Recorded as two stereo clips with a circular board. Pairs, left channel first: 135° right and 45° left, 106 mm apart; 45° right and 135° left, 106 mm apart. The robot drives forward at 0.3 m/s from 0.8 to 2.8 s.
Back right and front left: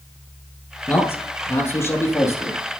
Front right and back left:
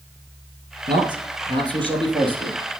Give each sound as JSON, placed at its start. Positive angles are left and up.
{"t": 0.9, "sound": "a man speaking", "azimuth_deg": 160, "distance_m": 2.5}